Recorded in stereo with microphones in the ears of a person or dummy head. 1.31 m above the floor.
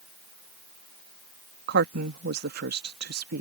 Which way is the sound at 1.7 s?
55° right (ahead or behind).